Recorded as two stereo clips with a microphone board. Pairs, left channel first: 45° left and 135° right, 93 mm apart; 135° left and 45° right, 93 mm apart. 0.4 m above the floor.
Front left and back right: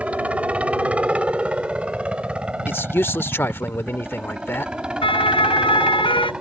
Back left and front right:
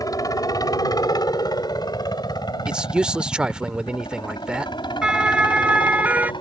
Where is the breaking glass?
No breaking glass in this recording.